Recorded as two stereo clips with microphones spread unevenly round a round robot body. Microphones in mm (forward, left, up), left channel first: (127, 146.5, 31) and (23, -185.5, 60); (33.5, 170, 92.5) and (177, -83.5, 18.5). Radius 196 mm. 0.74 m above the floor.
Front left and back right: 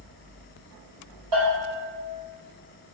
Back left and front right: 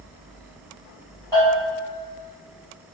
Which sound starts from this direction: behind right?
A bell, at 1.3 s.